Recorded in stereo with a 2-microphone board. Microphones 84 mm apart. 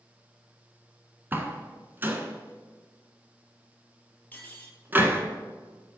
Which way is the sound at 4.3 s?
20° left (ahead or behind).